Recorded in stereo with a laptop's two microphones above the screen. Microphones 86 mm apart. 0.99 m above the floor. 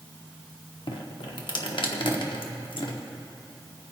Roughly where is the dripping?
Left.